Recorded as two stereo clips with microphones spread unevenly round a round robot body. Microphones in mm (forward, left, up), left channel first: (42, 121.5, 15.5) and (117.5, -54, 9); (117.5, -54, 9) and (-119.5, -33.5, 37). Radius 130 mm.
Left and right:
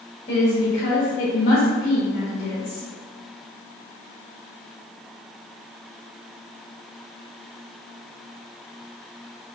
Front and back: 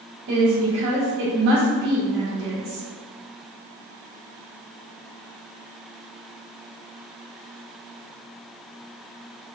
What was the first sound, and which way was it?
A woman speaking, 160° left.